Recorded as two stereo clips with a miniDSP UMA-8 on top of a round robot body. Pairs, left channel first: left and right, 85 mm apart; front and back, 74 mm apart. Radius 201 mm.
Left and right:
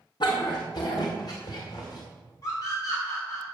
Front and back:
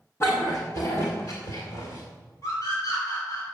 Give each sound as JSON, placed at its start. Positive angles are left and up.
{"t": 0.2, "sound": "a dog barking", "azimuth_deg": 55, "distance_m": 0.9}
{"t": 2.4, "sound": "a scream", "azimuth_deg": 35, "distance_m": 4.0}